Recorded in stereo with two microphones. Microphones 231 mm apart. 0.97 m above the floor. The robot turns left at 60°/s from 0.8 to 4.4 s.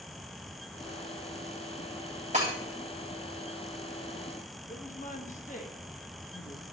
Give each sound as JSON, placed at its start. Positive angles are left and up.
{"t": 2.3, "sound": "breaking glass", "side_deg": -30, "distance_m": 2.5}
{"t": 4.7, "sound": "a woman speaking", "side_deg": 35, "distance_m": 1.0}